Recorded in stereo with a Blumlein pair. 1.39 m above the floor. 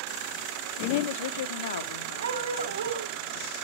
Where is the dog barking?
70° right, 3.5 m.